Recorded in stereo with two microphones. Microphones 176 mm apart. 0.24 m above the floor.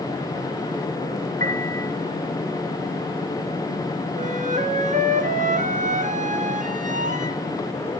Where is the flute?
45° right (ahead or behind), 2 m.